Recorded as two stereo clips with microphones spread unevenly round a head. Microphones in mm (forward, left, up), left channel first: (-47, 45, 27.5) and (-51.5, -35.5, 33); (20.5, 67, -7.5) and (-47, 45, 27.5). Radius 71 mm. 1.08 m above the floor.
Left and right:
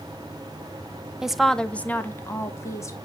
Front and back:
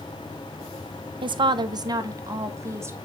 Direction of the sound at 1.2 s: 175° right.